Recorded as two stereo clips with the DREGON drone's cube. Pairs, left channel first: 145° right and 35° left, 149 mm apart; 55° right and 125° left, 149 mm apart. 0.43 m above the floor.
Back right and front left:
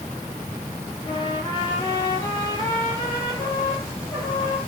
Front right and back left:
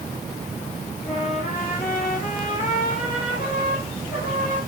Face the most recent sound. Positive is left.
turn(degrees=-85)